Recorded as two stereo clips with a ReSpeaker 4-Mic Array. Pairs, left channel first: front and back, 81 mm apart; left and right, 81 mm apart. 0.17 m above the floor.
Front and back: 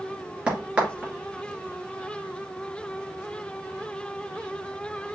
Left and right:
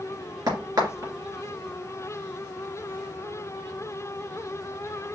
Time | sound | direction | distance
0.5 | a crack | 110° right | 2.5 m